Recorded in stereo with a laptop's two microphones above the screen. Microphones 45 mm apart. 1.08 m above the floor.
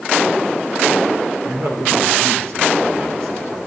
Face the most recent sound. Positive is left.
turn(degrees=-75)  # may be behind; listen again after turning